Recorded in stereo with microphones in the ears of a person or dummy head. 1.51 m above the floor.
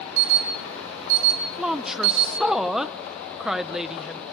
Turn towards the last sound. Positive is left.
turn(degrees=0)  # may be behind; listen again after turning